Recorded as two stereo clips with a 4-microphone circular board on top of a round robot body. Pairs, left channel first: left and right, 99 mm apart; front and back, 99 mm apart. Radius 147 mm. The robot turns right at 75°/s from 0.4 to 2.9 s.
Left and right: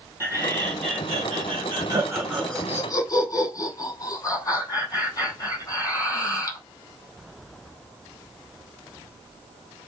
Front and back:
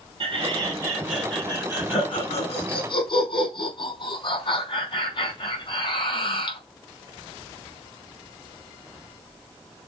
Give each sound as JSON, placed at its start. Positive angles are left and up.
{"t": 0.2, "sound": "laughter", "azimuth_deg": -155, "distance_m": 5.0}